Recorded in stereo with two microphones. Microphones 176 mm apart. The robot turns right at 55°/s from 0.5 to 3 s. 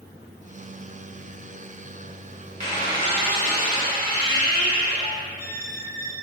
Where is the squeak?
40° right (ahead or behind), 1.0 m; by 6.1 s 60° right (ahead or behind), 1.0 m.